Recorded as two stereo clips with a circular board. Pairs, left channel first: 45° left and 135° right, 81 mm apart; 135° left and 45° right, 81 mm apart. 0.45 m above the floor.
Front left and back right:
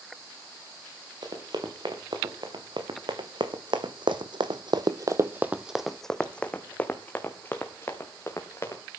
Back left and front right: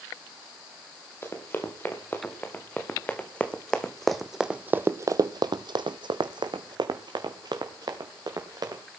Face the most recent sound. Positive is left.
turn(degrees=-10)